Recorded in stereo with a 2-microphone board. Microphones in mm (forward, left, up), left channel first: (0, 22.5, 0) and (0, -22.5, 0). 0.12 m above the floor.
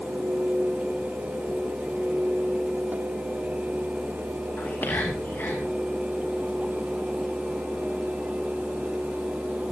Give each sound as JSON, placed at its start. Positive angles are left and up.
{"t": 4.6, "sound": "whispering", "side_deg": 50, "distance_m": 7.0}